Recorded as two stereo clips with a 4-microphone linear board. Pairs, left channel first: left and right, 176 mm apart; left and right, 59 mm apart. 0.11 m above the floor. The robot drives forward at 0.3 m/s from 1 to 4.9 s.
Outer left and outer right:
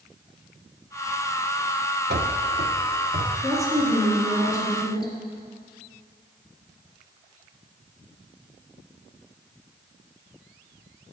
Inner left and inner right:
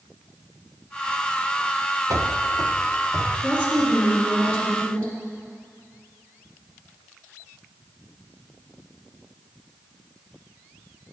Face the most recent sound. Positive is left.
turn(degrees=15)  # may be behind; listen again after turning